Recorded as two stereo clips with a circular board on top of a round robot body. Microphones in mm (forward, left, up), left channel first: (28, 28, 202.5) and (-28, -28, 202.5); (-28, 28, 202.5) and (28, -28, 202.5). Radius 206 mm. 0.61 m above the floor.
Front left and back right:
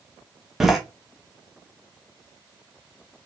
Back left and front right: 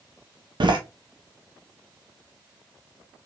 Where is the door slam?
50° right, 1.4 m.